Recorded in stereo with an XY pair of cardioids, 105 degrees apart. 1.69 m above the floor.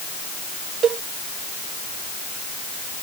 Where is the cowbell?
55° right.